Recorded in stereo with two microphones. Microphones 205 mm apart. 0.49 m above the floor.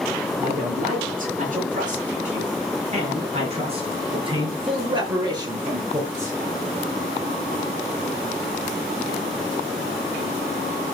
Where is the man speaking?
45° right (ahead or behind), 8 m; by 6.4 s 15° right (ahead or behind), 6.5 m.